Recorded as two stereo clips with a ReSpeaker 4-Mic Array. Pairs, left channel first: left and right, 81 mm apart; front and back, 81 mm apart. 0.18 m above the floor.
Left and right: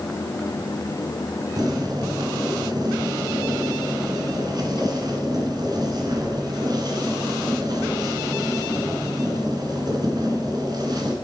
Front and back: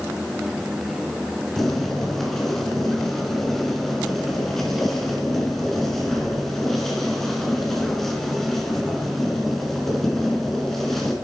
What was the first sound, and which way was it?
Boiling, 85° right.